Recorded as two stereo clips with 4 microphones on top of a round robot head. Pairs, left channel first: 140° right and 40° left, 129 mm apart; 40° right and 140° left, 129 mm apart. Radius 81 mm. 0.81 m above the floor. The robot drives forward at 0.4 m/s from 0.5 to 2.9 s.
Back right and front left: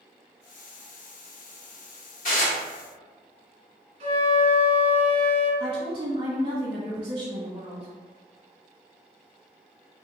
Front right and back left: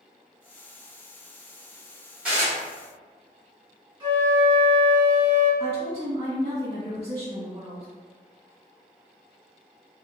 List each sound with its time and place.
2.2 s dishes clattering: 140° right, 1.7 m
4.0 s a flute: 80° left, 1.0 m
5.6 s a woman speaking: 90° left, 1.3 m